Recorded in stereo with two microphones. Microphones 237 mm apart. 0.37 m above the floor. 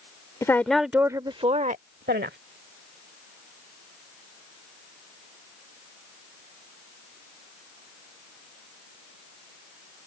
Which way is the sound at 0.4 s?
15° left (ahead or behind).